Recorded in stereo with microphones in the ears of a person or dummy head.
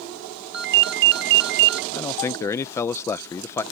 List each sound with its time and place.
0.5 s a ringtone: 55° right (ahead or behind)
1.9 s a man speaking: 15° left (ahead or behind)